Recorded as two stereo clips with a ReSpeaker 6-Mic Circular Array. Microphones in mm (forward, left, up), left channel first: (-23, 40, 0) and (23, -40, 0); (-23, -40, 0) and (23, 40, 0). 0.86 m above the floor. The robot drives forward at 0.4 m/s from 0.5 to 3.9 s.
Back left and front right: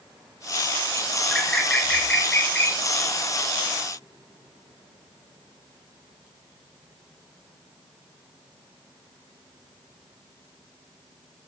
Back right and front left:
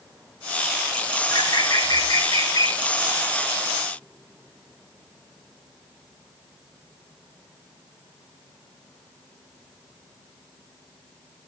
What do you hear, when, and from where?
1.3 s a bird: 155° right, 1.8 m; by 2.8 s 160° right, 2.5 m